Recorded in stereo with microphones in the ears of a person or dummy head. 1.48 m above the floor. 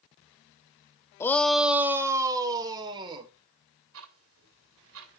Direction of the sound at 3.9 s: 80° right.